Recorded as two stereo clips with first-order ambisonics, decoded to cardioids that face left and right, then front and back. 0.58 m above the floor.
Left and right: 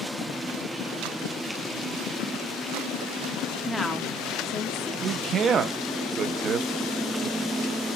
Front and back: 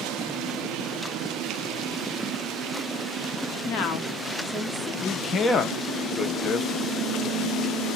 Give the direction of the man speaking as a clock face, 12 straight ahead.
2 o'clock.